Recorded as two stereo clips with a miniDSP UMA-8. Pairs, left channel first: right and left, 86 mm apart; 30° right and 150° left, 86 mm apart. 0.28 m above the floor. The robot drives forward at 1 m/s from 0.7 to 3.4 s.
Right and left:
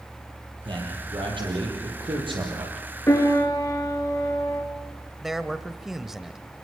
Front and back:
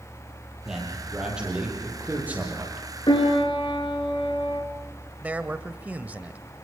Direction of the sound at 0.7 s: 65° left.